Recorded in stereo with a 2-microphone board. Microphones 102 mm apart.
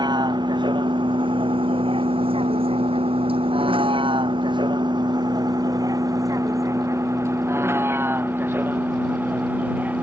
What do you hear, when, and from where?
0.0 s a vehicle: 50° right (ahead or behind); by 10.0 s 15° right (ahead or behind)